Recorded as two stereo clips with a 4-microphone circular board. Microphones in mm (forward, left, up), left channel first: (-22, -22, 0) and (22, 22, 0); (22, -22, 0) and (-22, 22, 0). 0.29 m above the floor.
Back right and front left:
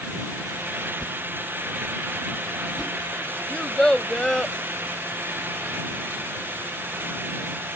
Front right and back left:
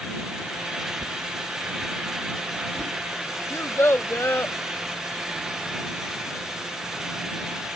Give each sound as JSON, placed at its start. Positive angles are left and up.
{"t": 1.0, "sound": "a whoosh", "azimuth_deg": 145}
{"t": 3.5, "sound": "a child speaking", "azimuth_deg": -60}